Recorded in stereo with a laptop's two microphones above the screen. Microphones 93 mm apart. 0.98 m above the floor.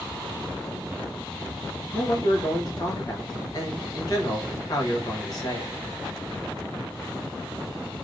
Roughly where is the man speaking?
Left.